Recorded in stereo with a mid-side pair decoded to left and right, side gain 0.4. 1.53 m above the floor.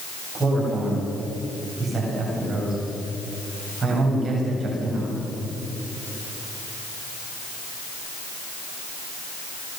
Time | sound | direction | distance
0.3 | a man speaking | 50° right | 9.5 m